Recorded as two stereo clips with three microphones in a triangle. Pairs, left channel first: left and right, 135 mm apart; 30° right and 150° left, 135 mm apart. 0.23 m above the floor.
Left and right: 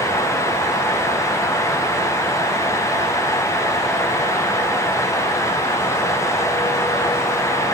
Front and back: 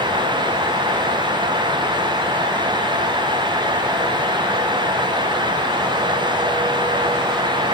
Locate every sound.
Only background noise.